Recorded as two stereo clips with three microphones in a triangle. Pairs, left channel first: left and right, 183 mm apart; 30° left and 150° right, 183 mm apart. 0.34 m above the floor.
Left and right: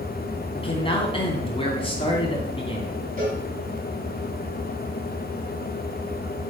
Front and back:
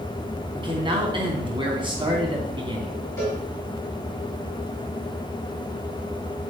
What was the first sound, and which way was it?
A man speaking, 150° left.